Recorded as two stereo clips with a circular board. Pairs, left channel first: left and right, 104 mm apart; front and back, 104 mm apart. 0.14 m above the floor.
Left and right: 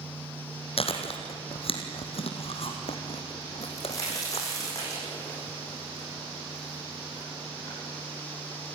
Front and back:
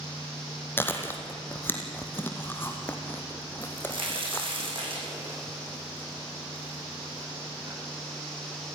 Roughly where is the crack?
Behind left.